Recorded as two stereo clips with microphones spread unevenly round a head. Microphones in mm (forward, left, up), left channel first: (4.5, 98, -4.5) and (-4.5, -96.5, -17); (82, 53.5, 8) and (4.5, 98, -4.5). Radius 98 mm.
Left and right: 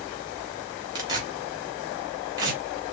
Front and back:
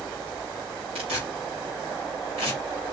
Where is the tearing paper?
165° right, 3 m.